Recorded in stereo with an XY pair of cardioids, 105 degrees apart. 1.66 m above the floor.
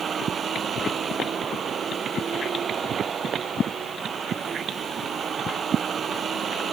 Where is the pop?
No pop in this recording.